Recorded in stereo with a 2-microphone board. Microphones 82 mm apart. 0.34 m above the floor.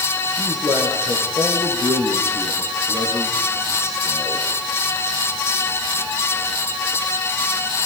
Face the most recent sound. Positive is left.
turn(degrees=-45)  # may be behind; listen again after turning